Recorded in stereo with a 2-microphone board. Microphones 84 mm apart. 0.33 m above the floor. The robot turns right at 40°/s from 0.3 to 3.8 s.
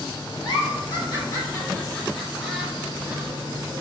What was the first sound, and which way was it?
A giggle, 75° left (ahead or behind).